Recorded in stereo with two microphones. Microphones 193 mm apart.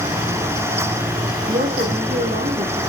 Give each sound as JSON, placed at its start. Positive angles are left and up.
{"t": 1.5, "sound": "a woman speaking", "side_deg": -45, "distance_m": 6.0}